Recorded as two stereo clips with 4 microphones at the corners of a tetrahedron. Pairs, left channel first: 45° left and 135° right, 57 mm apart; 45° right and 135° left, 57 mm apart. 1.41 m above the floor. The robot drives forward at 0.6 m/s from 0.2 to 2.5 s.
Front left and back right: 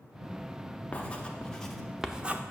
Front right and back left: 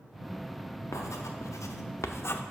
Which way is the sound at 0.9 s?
25° right.